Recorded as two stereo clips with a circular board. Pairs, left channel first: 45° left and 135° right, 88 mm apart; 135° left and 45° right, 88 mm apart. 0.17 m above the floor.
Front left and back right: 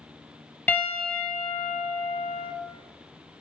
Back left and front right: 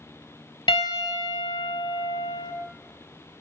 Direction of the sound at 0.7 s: 115° left.